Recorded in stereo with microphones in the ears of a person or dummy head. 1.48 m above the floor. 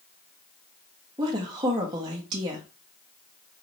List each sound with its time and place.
1.2 s a woman speaking: 30° right (ahead or behind), 0.9 m